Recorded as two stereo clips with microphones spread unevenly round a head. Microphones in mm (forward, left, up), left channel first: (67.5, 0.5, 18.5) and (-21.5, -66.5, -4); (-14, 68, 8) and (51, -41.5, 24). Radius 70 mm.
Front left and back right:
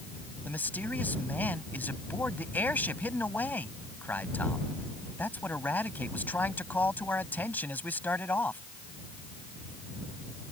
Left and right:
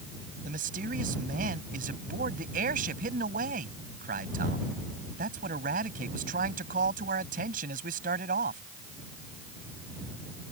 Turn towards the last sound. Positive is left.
turn(degrees=-40)